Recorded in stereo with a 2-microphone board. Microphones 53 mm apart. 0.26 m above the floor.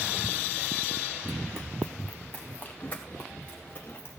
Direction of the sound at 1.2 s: 5° left (ahead or behind).